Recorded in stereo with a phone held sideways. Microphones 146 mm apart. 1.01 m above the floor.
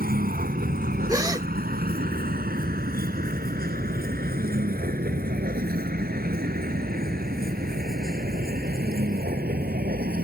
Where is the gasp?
25° right (ahead or behind).